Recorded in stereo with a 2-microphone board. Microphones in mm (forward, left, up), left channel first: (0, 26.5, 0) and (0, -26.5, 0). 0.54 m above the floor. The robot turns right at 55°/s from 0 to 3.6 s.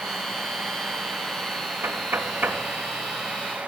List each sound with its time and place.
1.8 s knocking: 65° right (ahead or behind), 1.7 m; by 2.6 s 30° right (ahead or behind), 1.7 m